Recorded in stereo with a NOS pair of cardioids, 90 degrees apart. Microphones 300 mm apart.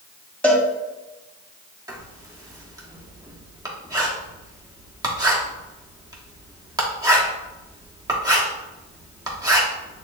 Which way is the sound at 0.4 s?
5° left.